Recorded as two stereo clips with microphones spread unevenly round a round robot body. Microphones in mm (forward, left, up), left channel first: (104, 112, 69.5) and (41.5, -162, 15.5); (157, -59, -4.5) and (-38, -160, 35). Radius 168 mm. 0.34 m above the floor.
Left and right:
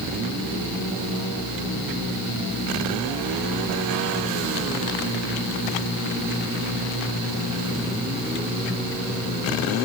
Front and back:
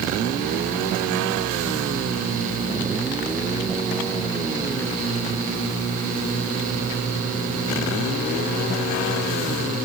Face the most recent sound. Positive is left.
No sound to turn to.